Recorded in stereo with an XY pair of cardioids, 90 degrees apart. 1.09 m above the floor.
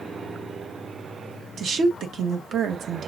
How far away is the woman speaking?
About 1.2 m.